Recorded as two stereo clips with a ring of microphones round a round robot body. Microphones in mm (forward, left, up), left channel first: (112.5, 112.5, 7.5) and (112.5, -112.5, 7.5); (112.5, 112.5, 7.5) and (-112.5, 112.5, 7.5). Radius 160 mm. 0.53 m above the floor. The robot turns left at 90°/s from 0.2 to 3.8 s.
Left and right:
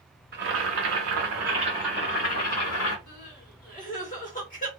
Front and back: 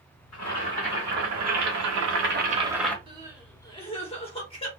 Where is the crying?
125° left, 1.4 m; by 4.7 s 55° left, 1.4 m.